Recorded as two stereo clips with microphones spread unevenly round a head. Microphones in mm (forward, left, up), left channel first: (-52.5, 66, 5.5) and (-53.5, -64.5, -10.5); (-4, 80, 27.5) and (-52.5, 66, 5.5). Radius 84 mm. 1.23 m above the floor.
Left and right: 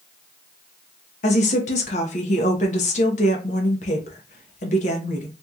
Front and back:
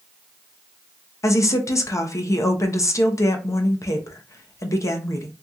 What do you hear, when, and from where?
1.2 s a woman speaking: 50° left, 0.7 m